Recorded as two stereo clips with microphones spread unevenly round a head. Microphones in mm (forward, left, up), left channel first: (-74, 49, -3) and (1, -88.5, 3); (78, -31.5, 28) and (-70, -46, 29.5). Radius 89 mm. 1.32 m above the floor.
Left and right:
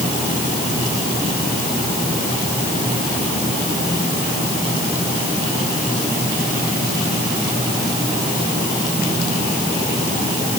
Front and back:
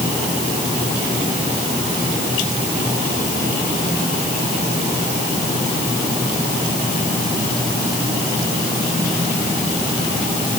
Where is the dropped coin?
No dropped coin in this recording.